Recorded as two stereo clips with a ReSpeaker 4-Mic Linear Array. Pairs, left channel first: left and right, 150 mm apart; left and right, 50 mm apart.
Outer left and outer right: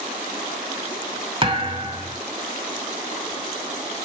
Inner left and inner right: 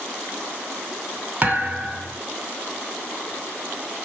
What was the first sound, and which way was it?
A thud, 35° right (ahead or behind).